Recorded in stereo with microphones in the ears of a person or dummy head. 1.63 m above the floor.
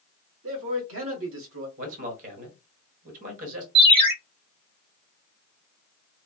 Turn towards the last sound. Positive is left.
turn(degrees=-25)  # may be behind; listen again after turning